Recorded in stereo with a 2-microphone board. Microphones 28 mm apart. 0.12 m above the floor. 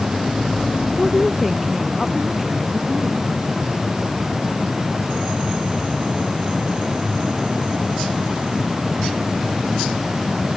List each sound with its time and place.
1.0 s a woman speaking: 5° left (ahead or behind); by 3.3 s 15° right (ahead or behind)